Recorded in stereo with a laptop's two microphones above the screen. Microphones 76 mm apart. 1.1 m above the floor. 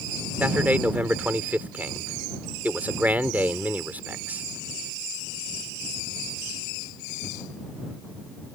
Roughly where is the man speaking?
Right.